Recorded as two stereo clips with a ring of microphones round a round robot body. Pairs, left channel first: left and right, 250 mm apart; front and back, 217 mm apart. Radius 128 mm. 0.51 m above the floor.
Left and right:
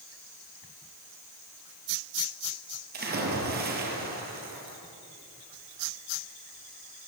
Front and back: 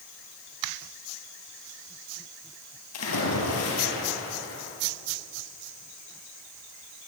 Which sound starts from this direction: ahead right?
A splash, at 2.9 s.